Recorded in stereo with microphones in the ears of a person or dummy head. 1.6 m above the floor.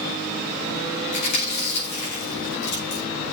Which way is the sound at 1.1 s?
60° left (ahead or behind).